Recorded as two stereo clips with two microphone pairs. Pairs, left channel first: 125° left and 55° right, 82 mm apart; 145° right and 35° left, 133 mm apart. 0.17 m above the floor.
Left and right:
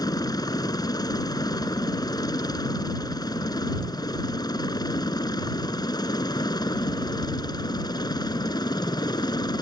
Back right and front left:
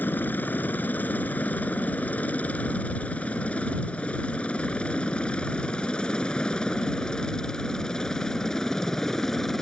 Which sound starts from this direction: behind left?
A helicopter, at 0.0 s.